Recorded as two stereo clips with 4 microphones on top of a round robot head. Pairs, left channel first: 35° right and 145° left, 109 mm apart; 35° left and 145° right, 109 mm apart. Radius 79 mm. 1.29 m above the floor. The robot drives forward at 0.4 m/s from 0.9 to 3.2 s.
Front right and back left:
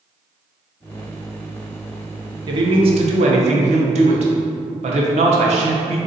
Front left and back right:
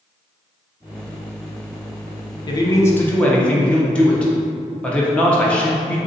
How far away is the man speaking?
About 0.6 m.